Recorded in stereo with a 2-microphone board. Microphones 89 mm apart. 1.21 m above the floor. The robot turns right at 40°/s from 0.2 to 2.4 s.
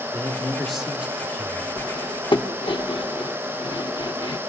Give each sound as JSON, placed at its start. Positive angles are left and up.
{"t": 0.1, "sound": "a man speaking", "azimuth_deg": 160, "distance_m": 2.5}
{"t": 1.8, "sound": "cutlery clinking", "side_deg": 45, "distance_m": 1.0}